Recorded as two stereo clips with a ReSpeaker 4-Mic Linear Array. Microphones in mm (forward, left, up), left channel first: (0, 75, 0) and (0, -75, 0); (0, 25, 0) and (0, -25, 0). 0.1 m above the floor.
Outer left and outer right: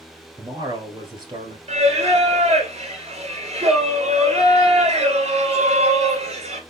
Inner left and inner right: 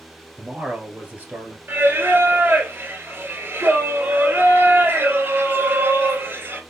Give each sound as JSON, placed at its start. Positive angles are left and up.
{"t": 0.4, "sound": "a man speaking", "side_deg": -25, "distance_m": 1.5}
{"t": 1.7, "sound": "singing", "side_deg": -45, "distance_m": 1.4}